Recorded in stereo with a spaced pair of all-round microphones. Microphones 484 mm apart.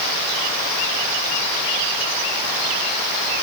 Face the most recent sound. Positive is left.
No sound to turn to.